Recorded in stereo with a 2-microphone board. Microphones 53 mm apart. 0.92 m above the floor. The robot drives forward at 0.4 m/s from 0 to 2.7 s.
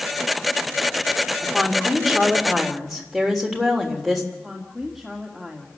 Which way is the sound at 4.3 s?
Centre (ahead or behind).